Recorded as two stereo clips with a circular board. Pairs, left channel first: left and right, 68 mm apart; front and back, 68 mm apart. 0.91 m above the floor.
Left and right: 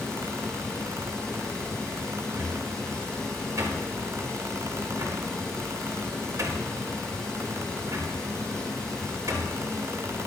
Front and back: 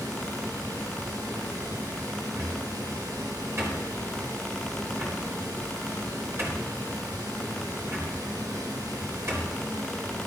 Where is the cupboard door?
130° right, 4 m.